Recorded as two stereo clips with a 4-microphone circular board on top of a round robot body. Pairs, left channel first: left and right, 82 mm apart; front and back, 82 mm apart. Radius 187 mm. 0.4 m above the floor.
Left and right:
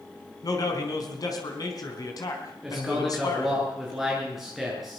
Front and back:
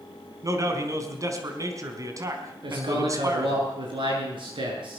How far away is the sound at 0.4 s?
About 4.5 m.